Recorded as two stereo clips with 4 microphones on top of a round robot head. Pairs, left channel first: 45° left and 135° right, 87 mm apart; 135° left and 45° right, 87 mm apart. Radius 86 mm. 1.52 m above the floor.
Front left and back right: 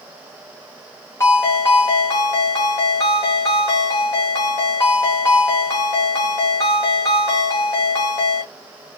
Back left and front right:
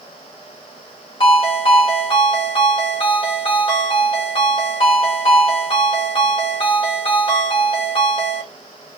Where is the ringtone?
105° left, 1.9 m.